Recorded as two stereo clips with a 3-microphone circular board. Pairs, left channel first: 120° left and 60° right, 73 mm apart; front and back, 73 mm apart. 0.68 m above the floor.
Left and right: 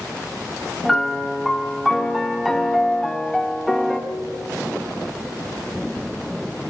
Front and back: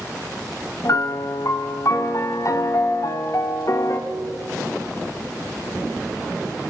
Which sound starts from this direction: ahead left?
A piano, at 0.8 s.